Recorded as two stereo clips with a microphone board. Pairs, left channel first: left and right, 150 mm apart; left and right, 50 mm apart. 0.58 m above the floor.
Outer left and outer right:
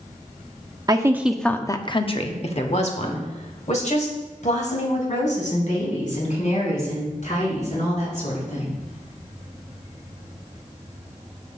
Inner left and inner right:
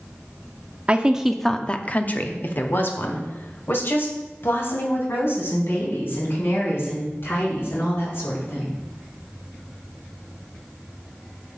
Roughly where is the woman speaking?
Right.